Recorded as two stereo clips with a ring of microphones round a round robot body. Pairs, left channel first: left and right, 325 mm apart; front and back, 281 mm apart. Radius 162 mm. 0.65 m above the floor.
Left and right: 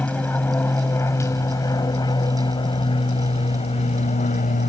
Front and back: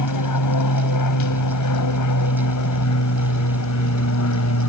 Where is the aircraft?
5° left; by 4.7 s 25° left.